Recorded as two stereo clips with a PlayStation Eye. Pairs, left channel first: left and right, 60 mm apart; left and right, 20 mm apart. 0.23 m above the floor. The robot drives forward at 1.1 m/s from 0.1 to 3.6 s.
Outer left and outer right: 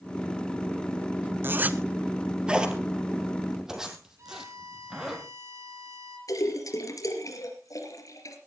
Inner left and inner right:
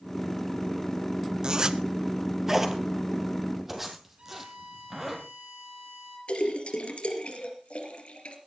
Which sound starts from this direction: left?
A splash, at 6.3 s.